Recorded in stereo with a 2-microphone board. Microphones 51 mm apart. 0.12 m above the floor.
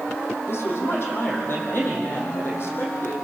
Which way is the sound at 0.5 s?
50° left (ahead or behind).